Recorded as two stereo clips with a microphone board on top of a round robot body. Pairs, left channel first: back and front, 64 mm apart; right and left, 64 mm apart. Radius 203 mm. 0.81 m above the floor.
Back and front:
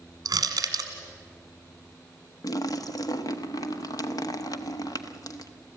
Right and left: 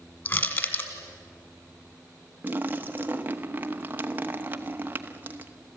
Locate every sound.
0.2 s crushing: 35° right, 1.7 m
2.4 s a splash: 155° left, 1.0 m